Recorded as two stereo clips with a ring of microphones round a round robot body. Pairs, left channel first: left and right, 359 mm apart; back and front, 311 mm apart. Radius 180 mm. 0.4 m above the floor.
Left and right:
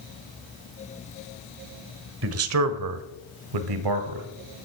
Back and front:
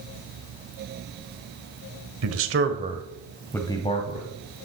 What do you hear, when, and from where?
2.2 s a man speaking: 40° right, 1.5 m; by 4.3 s 115° right, 2 m